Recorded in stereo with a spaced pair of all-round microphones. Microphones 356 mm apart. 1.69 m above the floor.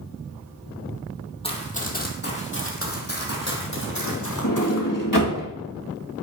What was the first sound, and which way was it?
Running footsteps, 15° left (ahead or behind).